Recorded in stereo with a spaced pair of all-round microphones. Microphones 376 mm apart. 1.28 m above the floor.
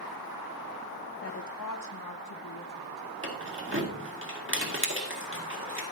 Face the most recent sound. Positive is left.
turn(degrees=-35)  # may be behind; listen again after turning